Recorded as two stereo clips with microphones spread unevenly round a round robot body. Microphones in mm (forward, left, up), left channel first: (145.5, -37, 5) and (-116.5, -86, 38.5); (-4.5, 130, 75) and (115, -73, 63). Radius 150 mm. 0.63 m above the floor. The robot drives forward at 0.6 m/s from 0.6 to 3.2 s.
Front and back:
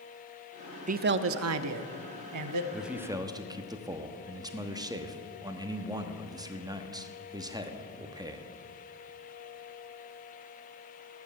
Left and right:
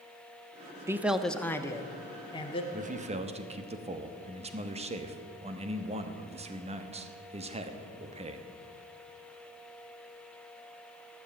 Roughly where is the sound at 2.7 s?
Right.